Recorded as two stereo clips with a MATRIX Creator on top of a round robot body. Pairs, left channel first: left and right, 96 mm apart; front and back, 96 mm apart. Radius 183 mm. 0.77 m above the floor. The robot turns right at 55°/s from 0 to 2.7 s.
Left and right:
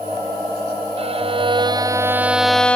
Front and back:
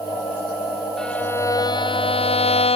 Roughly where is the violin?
Right.